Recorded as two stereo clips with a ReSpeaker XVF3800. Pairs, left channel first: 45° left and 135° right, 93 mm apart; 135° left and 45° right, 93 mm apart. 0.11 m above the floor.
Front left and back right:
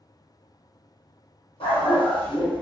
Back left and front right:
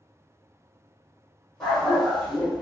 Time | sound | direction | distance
1.6 | a dog barking | 45° left | 1.5 m